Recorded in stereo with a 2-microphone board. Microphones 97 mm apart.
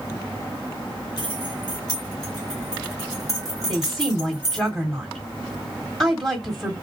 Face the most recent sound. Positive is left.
turn(degrees=5)  # may be behind; listen again after turning